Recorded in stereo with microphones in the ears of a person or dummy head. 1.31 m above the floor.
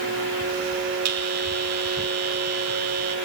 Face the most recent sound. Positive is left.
turn(degrees=-80)